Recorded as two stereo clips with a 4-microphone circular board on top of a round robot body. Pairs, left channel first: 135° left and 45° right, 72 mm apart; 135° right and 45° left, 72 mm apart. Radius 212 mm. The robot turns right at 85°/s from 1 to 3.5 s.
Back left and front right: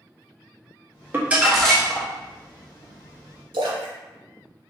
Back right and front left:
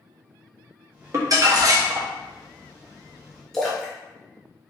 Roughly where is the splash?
Ahead right.